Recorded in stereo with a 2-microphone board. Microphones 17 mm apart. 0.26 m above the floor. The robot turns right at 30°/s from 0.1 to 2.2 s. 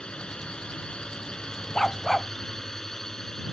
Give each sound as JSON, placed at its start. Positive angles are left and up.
{"t": 0.0, "sound": "a drone", "azimuth_deg": 80}
{"t": 1.8, "sound": "a dog barking", "side_deg": 30}